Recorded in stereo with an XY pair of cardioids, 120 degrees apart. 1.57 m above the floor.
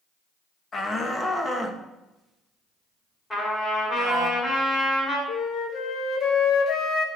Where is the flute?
55° left, 1.7 m.